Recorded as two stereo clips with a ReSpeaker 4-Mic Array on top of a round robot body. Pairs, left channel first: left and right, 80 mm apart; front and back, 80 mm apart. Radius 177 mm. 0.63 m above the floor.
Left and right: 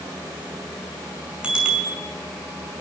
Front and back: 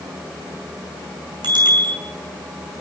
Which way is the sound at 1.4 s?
165° right.